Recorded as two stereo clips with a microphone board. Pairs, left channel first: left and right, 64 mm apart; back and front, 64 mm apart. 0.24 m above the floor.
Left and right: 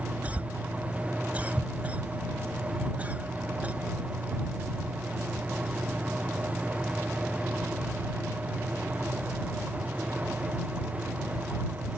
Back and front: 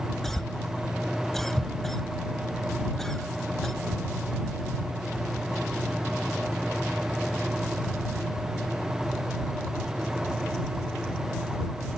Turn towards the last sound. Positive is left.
turn(degrees=-105)